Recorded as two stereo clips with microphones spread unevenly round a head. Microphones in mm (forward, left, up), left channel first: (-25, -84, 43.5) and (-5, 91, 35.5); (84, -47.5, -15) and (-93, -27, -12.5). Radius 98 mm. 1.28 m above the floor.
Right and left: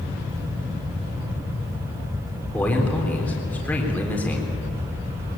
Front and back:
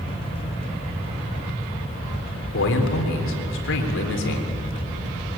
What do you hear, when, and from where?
2.5 s a man speaking: 15° right, 3.5 m